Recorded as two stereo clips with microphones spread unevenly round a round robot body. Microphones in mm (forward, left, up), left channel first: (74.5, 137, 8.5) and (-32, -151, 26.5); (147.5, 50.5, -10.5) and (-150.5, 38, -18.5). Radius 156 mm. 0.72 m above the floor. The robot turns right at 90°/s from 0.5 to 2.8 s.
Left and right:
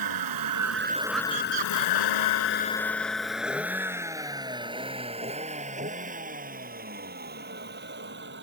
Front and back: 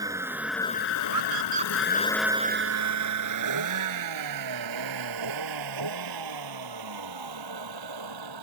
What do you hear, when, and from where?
0.0 s a vehicle: 100° right; by 8.4 s 165° right
1.1 s a scream: 150° right; by 3.3 s straight ahead